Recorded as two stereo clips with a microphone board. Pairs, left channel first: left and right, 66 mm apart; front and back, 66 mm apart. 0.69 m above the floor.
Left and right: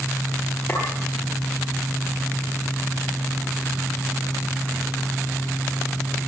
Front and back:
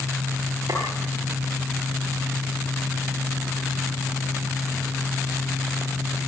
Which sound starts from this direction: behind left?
A clink, at 0.7 s.